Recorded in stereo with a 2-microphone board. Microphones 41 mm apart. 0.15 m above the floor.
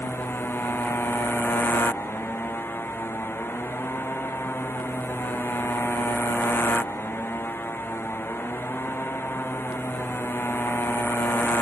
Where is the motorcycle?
60° left (ahead or behind).